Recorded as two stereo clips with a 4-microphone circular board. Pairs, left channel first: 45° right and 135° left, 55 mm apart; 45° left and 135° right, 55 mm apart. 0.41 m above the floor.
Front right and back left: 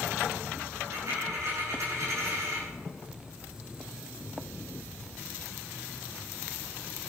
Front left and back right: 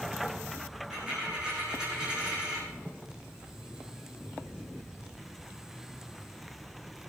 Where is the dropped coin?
155° left, 7 m.